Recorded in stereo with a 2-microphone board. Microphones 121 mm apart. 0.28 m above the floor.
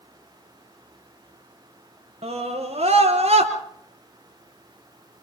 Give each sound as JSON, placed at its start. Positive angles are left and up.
{"t": 2.2, "sound": "a scream", "side_deg": -70, "distance_m": 4.5}